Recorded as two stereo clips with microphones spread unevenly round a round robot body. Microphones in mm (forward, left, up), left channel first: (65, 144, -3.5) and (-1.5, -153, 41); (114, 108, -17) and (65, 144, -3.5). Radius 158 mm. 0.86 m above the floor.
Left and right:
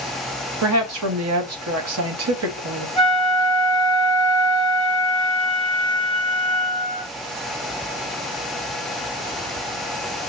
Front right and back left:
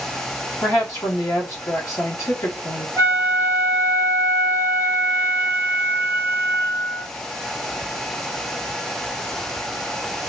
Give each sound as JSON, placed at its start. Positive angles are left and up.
{"t": 0.6, "sound": "a woman speaking", "azimuth_deg": -60, "distance_m": 0.8}
{"t": 3.0, "sound": "a flute", "azimuth_deg": -115, "distance_m": 1.6}